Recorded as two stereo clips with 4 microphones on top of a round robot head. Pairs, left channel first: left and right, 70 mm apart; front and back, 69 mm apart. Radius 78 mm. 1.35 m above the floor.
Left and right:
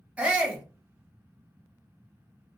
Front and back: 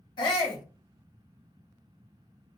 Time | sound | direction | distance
0.2 | a shout | 15° right | 1.0 m